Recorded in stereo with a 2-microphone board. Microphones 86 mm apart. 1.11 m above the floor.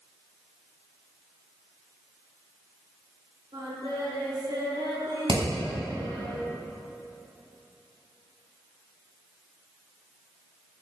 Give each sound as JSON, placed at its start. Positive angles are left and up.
{"t": 3.5, "sound": "singing", "side_deg": -75, "distance_m": 4.5}
{"t": 5.3, "sound": "hammering", "side_deg": -80, "distance_m": 4.5}